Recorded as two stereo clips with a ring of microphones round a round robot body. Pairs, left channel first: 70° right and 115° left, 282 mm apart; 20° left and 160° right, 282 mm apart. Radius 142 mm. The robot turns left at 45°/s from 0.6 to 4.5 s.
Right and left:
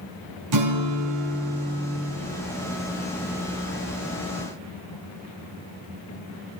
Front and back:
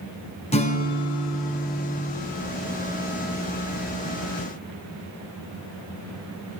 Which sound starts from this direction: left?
A guitar, at 0.5 s.